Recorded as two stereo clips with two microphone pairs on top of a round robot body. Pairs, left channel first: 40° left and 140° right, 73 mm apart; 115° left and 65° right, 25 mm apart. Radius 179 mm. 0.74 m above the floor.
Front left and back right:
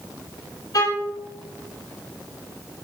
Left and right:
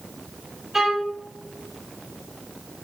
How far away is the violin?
About 4.5 m.